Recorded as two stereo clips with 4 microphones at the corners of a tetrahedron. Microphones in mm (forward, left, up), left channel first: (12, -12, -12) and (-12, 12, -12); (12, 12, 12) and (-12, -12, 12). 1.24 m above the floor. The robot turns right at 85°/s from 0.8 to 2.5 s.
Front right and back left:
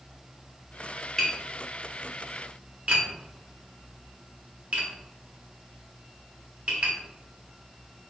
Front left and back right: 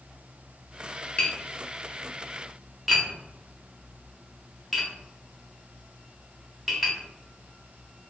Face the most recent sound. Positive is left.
turn(degrees=140)